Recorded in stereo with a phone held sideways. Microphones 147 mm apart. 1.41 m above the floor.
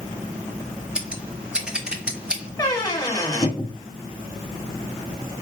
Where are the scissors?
5° right (ahead or behind), 0.7 m.